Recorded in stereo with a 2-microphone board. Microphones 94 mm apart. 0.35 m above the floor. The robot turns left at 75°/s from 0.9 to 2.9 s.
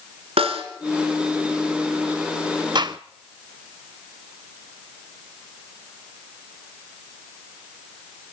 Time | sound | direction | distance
0.4 | a snare drum | 80° right | 2.5 m
2.8 | a gunshot | 50° right (ahead or behind) | 0.6 m